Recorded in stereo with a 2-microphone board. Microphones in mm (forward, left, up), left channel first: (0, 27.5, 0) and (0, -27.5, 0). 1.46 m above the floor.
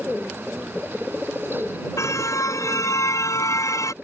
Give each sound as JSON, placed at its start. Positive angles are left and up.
{"t": 2.0, "sound": "a car horn", "side_deg": 75}